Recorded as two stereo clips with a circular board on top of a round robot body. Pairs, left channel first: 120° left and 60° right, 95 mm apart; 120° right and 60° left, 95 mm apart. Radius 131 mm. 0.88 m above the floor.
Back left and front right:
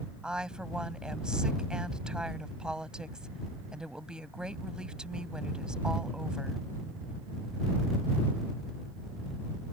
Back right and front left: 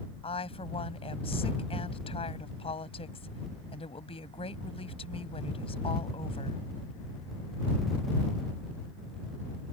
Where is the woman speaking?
140° right.